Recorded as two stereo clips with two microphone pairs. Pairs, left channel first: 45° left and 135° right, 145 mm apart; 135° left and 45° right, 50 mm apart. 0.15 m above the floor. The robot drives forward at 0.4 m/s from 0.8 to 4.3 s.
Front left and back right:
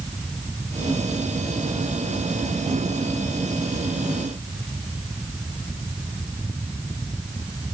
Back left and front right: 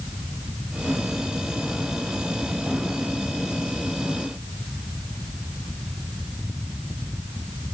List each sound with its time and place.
Only background noise.